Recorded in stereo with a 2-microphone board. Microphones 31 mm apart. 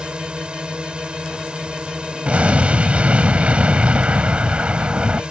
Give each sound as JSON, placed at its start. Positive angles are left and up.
{"t": 0.0, "sound": "a drone", "side_deg": -35}
{"t": 2.2, "sound": "an explosion", "side_deg": -50}